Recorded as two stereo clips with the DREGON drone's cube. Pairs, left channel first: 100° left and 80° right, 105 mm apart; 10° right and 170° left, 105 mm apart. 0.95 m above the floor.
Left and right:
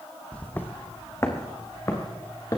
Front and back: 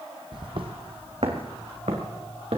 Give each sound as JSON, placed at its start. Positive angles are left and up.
{"t": 0.3, "sound": "footsteps", "azimuth_deg": 175, "distance_m": 1.4}